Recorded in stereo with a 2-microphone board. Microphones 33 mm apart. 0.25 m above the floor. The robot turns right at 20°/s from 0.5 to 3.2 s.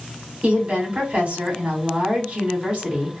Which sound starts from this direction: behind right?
A woman speaking, at 0.4 s.